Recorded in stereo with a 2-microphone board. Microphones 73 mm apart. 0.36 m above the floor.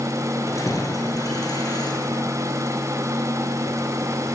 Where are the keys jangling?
45° left (ahead or behind), 5 m; by 2.2 s 65° left (ahead or behind), 6 m.